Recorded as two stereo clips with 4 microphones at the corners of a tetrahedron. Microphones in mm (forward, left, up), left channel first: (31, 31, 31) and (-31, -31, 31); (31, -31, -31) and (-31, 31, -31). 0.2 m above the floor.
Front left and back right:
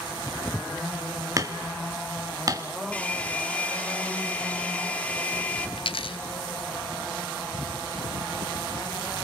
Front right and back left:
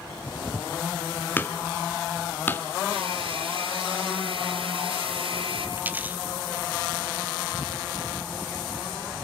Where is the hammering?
105° right, 1.5 m.